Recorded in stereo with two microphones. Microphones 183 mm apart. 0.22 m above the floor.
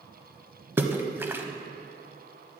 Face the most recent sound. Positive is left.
turn(degrees=-10)  # may be behind; listen again after turning